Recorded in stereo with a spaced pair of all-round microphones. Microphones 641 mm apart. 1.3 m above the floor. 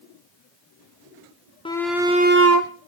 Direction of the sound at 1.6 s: 10° left (ahead or behind).